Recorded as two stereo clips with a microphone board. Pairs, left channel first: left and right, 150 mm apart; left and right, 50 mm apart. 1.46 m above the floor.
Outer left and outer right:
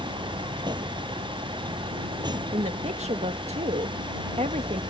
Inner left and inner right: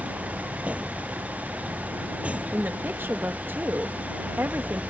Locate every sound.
0.0 s a vehicle: 30° right (ahead or behind)
2.5 s a woman speaking: 50° right (ahead or behind)